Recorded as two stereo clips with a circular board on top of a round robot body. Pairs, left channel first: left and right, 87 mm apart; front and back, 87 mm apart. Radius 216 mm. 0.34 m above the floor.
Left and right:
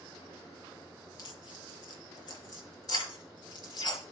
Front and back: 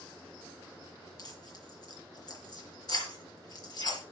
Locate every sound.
1.2 s tearing paper: 45° left, 5.5 m